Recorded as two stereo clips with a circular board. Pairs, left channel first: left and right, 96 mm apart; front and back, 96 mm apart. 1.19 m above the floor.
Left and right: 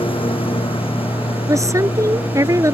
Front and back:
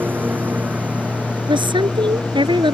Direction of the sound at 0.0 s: 110° left.